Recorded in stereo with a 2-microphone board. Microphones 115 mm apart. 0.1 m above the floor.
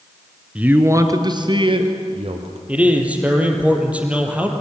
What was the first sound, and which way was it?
A man speaking, 10° right (ahead or behind).